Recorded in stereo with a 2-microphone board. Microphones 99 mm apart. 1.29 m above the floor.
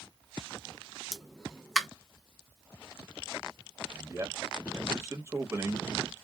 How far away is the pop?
About 0.5 m.